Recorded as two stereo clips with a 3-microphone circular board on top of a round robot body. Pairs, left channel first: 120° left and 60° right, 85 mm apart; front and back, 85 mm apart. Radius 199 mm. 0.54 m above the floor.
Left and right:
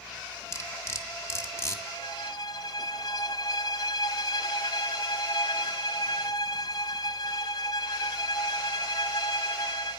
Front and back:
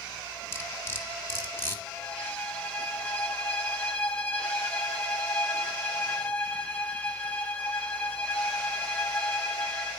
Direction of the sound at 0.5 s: 60° left.